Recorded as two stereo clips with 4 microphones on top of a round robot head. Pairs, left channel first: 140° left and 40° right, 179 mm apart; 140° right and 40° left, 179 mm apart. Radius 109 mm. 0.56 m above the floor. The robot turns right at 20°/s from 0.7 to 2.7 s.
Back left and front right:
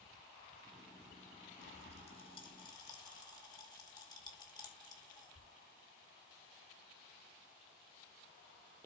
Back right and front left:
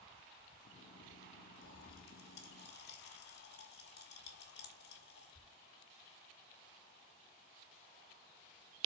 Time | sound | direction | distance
1.6 | a pop | 175° right | 2.5 m